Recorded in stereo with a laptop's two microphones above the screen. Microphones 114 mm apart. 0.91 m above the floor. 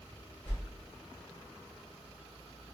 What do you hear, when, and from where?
0.5 s a whoosh: 20° left (ahead or behind), 1.0 m